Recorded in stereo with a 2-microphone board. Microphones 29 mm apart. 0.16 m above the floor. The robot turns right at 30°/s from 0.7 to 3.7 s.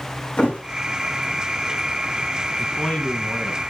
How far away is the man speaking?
About 1.5 m.